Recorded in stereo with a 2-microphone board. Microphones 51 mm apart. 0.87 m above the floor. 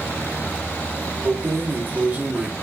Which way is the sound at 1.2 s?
55° right (ahead or behind).